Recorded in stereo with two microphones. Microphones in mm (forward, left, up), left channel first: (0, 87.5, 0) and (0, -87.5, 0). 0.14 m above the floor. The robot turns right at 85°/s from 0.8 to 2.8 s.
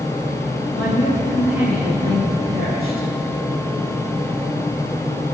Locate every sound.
0.7 s a woman speaking: 125° left, 7.5 m; by 3.1 s 65° right, 7.5 m